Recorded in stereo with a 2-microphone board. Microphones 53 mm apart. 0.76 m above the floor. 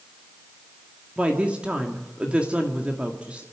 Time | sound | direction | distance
1.2 | a woman speaking | 25° right (ahead or behind) | 1.9 m